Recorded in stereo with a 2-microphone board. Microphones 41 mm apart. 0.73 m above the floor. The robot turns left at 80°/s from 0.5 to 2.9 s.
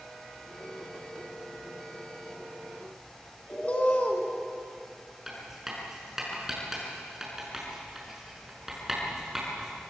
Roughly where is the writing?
Centre.